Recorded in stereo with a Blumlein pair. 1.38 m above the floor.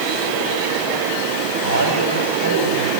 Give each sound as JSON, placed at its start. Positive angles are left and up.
{"t": 1.6, "sound": "a man speaking", "azimuth_deg": -65, "distance_m": 7.0}